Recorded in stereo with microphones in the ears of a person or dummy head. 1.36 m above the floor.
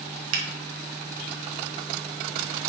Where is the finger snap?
80° right, 1.1 m.